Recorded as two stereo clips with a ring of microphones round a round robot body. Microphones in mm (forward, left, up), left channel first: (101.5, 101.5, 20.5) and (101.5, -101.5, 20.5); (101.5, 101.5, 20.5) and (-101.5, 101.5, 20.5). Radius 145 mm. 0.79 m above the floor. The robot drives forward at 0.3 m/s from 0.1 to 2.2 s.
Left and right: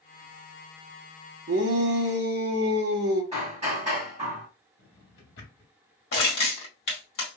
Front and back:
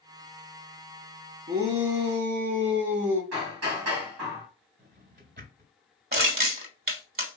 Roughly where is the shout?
Behind right.